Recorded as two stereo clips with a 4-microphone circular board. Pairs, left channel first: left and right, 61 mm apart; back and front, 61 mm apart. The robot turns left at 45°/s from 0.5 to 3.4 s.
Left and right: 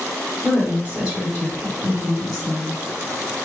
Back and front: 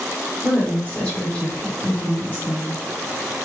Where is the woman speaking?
110° right, 1.4 m; by 2.8 s 145° left, 1.4 m.